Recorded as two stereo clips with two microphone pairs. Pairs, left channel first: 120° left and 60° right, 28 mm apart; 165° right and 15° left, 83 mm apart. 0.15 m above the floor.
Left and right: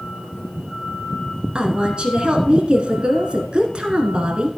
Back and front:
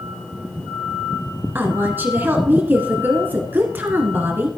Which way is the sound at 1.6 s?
35° right.